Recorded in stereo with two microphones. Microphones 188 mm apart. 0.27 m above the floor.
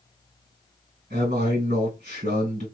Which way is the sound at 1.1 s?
55° right (ahead or behind).